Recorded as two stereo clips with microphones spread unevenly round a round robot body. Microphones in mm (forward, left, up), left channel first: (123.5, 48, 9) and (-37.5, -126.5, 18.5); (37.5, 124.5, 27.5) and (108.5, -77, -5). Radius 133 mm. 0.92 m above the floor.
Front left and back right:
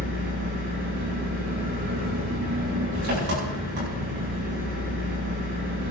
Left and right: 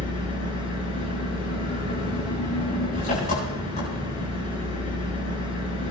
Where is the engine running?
175° left, 7 m.